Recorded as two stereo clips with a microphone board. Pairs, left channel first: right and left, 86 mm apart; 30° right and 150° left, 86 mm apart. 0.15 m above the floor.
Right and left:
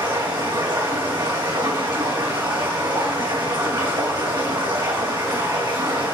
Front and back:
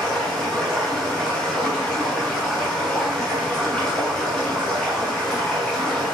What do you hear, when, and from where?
0.0 s running water: 55° left, 3.5 m